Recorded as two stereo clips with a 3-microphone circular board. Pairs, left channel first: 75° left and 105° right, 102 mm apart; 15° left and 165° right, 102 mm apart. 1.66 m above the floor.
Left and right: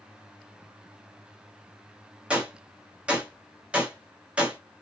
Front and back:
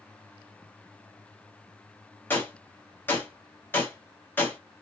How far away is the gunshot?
About 1.2 m.